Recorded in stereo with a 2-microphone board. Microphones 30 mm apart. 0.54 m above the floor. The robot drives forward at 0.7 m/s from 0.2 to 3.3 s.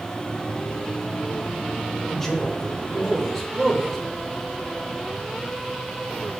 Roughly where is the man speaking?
Centre.